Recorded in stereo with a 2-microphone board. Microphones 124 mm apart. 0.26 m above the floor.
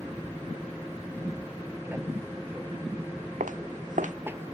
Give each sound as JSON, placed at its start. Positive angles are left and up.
{"t": 0.0, "sound": "an aircraft", "side_deg": -20}
{"t": 3.4, "sound": "footsteps", "side_deg": -85}